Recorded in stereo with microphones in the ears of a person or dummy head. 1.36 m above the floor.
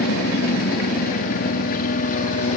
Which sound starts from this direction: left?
A helicopter, at 0.0 s.